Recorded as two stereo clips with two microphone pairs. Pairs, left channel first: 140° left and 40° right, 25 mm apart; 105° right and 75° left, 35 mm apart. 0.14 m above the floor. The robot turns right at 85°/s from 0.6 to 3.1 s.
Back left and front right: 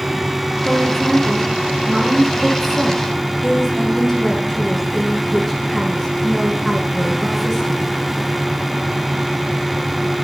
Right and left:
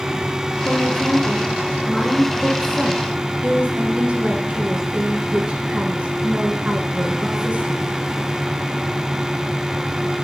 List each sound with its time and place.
0.7 s a woman speaking: 140° right, 1.7 m; by 7.8 s 70° left, 1.7 m